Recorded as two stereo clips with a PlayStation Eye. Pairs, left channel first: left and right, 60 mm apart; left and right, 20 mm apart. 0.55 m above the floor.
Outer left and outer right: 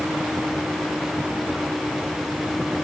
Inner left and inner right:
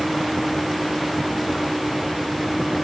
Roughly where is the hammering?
No hammering in this recording.